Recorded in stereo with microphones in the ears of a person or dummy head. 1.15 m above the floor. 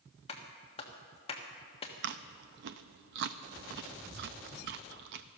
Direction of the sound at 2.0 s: 55° right (ahead or behind).